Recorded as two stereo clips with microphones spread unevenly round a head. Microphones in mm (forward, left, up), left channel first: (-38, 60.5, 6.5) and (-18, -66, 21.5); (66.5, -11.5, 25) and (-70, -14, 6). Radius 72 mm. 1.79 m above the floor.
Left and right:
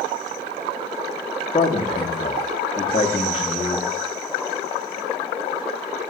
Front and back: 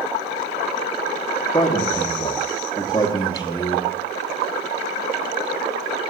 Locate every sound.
1.5 s a man speaking: 50° left, 1.0 m